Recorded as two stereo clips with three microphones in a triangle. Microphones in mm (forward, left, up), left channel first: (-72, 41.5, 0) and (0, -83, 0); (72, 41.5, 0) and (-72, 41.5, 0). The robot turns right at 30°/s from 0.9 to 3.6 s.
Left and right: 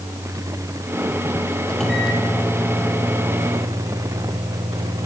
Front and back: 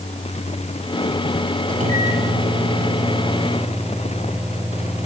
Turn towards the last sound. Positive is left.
turn(degrees=-100)